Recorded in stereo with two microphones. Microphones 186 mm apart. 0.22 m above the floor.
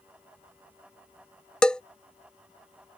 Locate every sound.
1.6 s a bell: 5° left (ahead or behind)